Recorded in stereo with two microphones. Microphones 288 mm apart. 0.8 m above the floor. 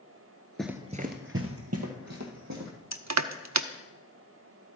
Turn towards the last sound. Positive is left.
turn(degrees=-70)  # may be behind; listen again after turning